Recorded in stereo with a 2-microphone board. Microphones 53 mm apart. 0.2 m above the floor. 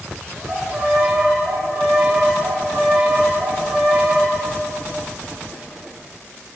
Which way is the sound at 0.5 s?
10° right (ahead or behind).